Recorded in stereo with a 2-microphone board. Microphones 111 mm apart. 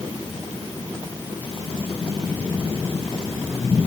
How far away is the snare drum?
No snare drum in this recording.